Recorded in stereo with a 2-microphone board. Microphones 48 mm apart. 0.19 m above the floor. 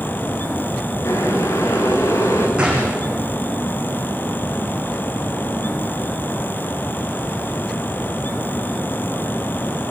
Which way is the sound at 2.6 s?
20° right (ahead or behind).